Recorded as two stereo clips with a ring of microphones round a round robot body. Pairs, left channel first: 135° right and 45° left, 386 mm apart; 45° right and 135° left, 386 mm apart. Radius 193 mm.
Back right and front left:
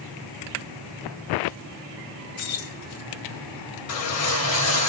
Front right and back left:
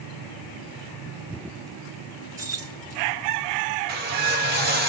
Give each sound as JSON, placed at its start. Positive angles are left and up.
{"t": 2.4, "sound": "keys jangling", "azimuth_deg": -145, "distance_m": 2.5}
{"t": 3.9, "sound": "a whoosh", "azimuth_deg": -170, "distance_m": 1.8}